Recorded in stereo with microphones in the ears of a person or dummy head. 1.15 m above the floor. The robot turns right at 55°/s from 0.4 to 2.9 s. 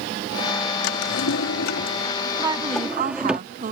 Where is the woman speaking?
10° right (ahead or behind); by 3.7 s 40° right (ahead or behind).